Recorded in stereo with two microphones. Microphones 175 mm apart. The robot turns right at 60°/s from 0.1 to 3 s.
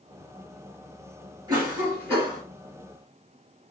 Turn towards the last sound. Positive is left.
turn(degrees=40)